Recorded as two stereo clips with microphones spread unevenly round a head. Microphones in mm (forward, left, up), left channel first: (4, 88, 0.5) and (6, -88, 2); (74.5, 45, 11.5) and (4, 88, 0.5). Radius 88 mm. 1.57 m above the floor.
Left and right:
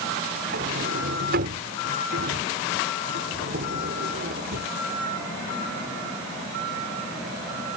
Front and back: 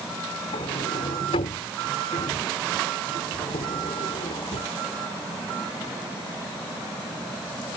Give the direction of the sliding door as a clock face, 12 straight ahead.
2 o'clock.